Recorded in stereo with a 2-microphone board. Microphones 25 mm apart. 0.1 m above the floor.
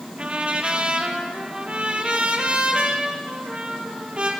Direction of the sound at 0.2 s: 45° right (ahead or behind).